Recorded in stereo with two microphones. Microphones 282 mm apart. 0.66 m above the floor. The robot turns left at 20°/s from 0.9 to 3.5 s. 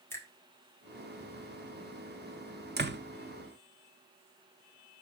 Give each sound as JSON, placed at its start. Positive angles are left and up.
{"t": 0.1, "sound": "a finger snap", "side_deg": 10, "distance_m": 1.6}
{"t": 2.8, "sound": "a door slam", "side_deg": -35, "distance_m": 0.6}